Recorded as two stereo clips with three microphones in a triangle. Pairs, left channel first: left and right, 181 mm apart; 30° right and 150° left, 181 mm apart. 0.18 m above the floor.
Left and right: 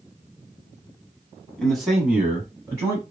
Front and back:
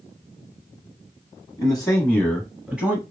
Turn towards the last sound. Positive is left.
turn(degrees=-145)